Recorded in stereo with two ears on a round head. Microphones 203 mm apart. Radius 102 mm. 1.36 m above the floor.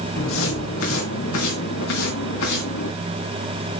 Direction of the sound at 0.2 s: 60° left (ahead or behind).